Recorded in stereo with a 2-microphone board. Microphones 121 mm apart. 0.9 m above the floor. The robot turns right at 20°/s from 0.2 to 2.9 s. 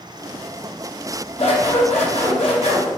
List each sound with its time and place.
1.4 s scissors: 90° left, 1.1 m; by 2.9 s 120° left, 1.1 m